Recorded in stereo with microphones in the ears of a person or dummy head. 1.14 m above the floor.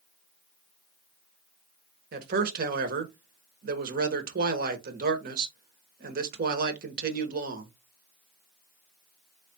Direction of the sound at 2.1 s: 45° right (ahead or behind).